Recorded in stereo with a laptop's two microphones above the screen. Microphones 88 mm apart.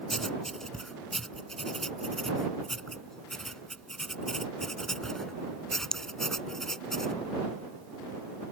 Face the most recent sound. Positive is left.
turn(degrees=5)  # may be behind; listen again after turning